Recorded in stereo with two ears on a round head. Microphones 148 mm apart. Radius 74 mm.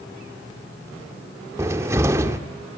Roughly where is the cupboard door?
Centre.